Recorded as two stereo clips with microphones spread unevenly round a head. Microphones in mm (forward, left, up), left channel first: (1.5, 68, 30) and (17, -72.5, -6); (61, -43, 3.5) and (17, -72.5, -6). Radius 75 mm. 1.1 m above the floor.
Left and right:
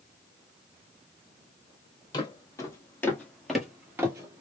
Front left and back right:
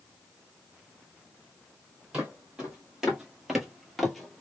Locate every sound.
2.1 s footsteps: 135° left, 1.6 m; by 4.4 s 15° right, 1.1 m